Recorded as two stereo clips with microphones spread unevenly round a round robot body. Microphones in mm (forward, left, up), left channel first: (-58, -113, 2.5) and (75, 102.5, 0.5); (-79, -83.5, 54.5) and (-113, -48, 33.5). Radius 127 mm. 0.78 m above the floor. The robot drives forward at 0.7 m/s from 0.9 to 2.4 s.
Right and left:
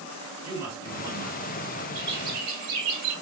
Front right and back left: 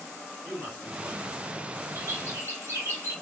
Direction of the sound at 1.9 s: 105° left.